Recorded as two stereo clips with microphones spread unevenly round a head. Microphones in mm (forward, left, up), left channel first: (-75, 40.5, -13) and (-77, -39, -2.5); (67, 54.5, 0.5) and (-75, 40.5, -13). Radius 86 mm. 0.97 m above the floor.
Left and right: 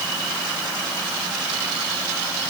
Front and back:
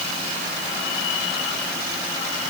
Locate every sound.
Only background noise.